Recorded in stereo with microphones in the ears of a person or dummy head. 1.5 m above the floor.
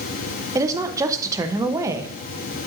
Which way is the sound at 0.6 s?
15° right (ahead or behind).